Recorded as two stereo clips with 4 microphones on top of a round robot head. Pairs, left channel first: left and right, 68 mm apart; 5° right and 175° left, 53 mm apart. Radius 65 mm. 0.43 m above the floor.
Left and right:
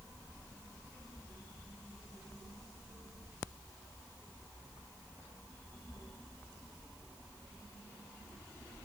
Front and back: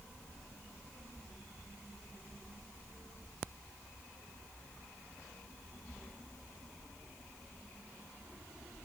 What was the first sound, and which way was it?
Only background noise.